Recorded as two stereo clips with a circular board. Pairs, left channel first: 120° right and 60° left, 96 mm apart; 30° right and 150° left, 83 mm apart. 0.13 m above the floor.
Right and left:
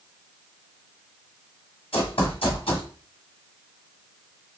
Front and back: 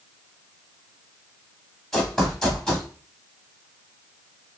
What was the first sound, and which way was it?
Running footsteps, 115° right.